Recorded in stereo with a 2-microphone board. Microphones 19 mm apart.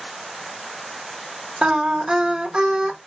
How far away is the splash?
No splash in this recording.